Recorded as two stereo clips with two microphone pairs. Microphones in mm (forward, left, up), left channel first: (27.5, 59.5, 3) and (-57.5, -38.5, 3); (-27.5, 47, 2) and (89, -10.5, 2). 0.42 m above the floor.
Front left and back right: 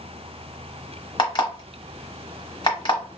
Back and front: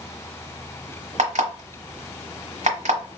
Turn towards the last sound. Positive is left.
turn(degrees=0)